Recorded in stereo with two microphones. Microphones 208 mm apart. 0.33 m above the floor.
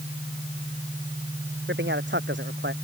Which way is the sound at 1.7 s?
60° right (ahead or behind).